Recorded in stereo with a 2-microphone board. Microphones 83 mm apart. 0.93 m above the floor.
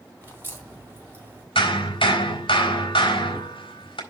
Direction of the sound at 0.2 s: 25° right (ahead or behind).